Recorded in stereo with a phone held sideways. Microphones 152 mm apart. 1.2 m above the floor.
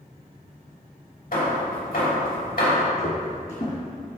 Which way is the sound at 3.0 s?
50° left (ahead or behind).